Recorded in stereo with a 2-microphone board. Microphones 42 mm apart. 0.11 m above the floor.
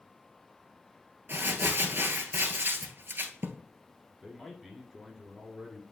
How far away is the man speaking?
About 1.6 m.